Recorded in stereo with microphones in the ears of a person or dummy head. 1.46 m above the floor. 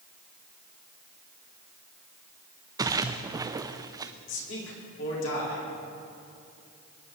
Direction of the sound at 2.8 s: 20° right (ahead or behind).